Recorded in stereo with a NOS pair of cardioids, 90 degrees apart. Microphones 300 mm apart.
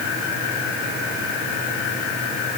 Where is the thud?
I don't hear a thud.